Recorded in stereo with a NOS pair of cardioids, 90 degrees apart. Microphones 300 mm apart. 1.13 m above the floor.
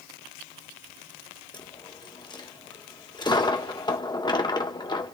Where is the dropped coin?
15° left, 1.2 m.